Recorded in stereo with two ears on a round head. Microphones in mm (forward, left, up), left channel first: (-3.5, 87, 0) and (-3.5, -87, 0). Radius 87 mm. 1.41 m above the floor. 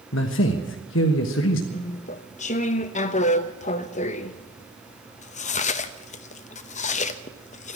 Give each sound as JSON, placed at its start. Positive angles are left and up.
{"t": 0.1, "sound": "a man speaking", "side_deg": 70, "distance_m": 1.2}
{"t": 1.7, "sound": "chewing", "side_deg": 40, "distance_m": 0.7}